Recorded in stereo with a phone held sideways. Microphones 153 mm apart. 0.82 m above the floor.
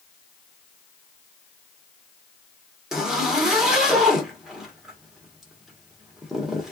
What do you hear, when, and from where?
2.9 s a zipper: 5° right (ahead or behind), 1.3 m